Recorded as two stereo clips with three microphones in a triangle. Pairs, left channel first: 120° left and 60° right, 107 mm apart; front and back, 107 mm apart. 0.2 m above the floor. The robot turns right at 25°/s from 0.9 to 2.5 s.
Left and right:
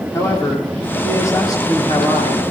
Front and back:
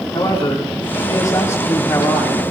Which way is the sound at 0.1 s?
50° left.